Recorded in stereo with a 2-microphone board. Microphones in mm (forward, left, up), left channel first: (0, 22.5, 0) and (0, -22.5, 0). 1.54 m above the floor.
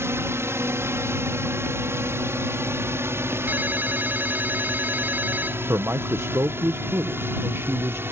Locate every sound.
0.0 s a drone: 70° right (ahead or behind); by 8.1 s 55° right (ahead or behind)
3.5 s a ringtone: 40° right (ahead or behind)
5.7 s a man speaking: 70° right (ahead or behind)